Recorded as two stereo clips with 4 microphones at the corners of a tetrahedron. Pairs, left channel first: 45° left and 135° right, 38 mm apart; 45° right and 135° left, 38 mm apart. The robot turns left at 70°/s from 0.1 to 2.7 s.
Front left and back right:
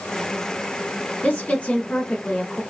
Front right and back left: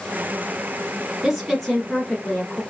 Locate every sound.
1.2 s a woman speaking: 60° left, 1.3 m; by 2.6 s 35° right, 1.3 m